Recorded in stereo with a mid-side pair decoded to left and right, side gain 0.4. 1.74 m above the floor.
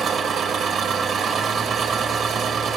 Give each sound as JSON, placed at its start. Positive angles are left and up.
{"t": 0.0, "sound": "an engine running", "azimuth_deg": -70, "distance_m": 1.5}